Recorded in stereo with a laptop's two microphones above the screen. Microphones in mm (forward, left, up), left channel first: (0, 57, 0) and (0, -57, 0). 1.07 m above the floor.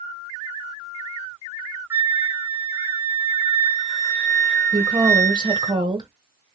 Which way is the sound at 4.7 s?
40° right (ahead or behind).